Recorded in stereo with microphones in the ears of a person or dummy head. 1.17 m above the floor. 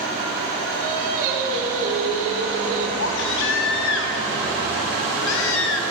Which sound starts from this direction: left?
A baby crying, at 3.0 s.